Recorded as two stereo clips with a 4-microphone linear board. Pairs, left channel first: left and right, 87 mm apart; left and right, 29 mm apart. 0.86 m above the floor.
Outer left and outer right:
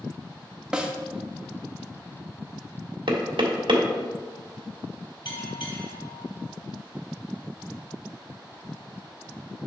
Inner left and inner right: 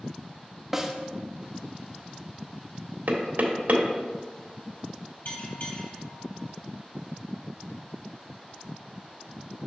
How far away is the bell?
About 3.5 m.